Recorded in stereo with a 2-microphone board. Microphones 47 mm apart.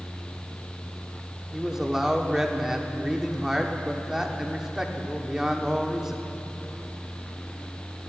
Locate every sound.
1.5 s a man speaking: 10° right (ahead or behind), 1.2 m